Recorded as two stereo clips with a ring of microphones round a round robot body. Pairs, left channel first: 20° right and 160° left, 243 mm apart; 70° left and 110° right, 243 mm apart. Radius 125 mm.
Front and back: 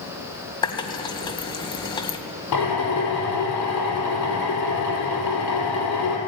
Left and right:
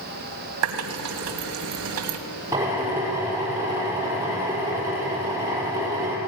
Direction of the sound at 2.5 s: 35° right.